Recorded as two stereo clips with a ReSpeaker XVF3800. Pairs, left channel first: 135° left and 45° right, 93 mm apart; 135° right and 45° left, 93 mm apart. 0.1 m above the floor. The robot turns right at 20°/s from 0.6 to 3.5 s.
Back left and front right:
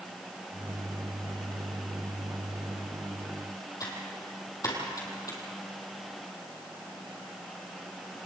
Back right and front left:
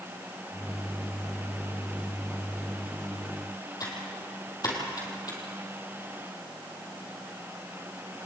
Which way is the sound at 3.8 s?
Straight behind.